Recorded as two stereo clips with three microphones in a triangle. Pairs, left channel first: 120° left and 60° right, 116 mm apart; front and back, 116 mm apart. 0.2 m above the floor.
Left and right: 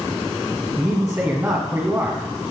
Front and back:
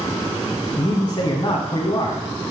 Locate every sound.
0.8 s a man speaking: 10° right, 1.4 m